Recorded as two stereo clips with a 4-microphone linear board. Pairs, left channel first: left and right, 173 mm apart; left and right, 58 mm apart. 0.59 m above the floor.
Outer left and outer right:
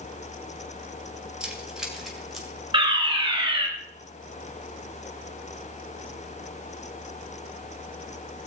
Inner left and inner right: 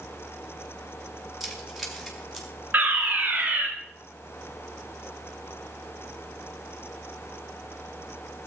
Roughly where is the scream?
I don't hear a scream.